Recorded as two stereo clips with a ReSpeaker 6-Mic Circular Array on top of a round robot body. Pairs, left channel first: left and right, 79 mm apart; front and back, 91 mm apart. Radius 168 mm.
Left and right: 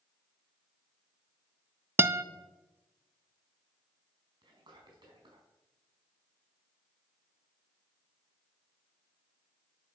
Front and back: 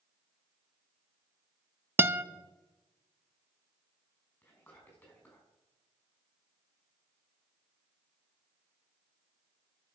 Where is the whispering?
65° right, 5.5 m.